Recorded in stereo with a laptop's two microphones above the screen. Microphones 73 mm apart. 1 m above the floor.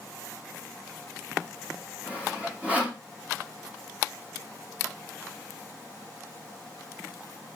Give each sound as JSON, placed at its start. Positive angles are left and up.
{"t": 2.1, "sound": "sawing", "side_deg": -15, "distance_m": 1.9}